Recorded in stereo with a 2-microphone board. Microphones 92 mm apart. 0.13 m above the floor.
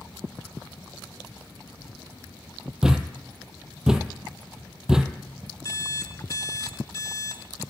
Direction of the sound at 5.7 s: 40° left (ahead or behind).